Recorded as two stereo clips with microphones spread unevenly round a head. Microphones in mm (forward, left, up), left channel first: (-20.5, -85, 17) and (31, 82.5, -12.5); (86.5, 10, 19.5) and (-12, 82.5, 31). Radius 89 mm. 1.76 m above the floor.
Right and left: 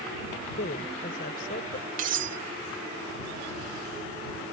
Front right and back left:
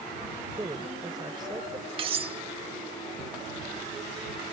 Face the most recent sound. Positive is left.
turn(degrees=120)